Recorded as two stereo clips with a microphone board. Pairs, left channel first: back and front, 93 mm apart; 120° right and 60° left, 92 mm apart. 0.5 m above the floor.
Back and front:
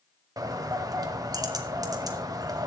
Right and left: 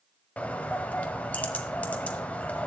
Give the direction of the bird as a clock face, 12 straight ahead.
2 o'clock.